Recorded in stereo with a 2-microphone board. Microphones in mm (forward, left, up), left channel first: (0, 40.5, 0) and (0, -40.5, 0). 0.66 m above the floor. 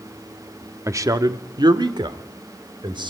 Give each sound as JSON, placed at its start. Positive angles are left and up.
{"t": 0.9, "sound": "a man speaking", "side_deg": -35, "distance_m": 1.2}